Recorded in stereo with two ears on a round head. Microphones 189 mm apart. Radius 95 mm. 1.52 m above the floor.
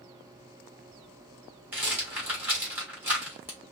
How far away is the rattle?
About 2.5 m.